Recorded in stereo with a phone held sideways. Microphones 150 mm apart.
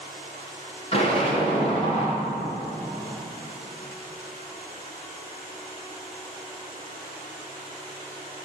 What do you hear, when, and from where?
0.9 s an explosion: 40° left (ahead or behind), 4 m